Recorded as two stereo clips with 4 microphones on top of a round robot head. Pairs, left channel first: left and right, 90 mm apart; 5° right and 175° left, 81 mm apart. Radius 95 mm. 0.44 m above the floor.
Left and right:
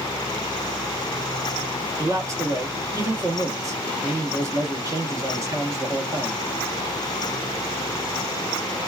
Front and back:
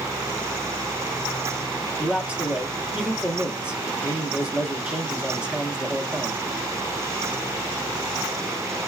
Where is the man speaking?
110° right, 1.1 m.